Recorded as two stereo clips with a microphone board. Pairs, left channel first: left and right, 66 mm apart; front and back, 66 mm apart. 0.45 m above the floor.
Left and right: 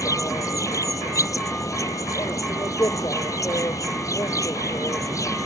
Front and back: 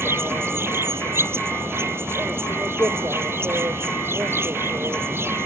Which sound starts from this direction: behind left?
An insect, at 0.0 s.